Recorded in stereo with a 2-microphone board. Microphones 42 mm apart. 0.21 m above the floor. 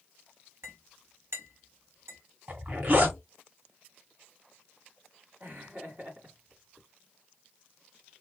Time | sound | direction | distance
0.6 | a clink | 70° right (ahead or behind) | 2 m
2.5 | a zipper | 40° right (ahead or behind) | 1.2 m
5.4 | laughter | 50° right (ahead or behind) | 2 m